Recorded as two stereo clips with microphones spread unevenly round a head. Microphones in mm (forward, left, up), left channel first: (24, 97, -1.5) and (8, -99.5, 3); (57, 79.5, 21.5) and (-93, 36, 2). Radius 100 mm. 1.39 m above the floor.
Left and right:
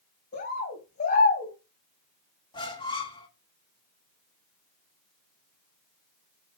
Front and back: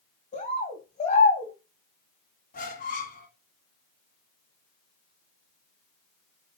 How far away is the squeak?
About 1.2 m.